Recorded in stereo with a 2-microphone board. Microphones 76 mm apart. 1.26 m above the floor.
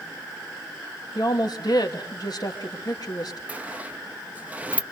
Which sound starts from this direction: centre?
A sliding door, at 3.5 s.